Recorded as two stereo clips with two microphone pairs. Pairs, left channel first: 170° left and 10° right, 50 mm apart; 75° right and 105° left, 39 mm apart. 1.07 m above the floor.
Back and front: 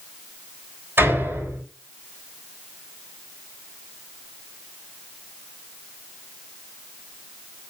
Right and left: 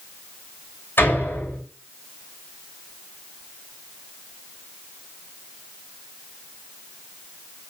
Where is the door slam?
45° right, 6 m.